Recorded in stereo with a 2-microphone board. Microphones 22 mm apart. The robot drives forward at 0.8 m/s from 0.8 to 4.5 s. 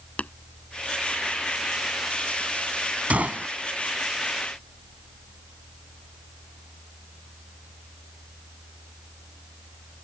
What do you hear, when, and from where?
0.2 s tapping: 80° left
3.1 s a gunshot: 90° right; by 3.5 s 80° right